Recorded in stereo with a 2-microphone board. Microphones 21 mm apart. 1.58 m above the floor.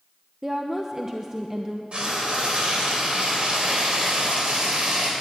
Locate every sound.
0.4 s a woman speaking: 20° right (ahead or behind), 0.8 m
1.9 s frying: 50° right (ahead or behind), 3 m